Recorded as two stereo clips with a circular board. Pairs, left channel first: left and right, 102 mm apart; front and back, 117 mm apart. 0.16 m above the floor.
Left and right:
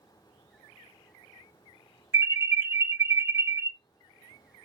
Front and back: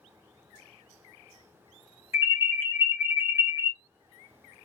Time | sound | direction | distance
2.1 | an alarm | 130° right | 2.5 m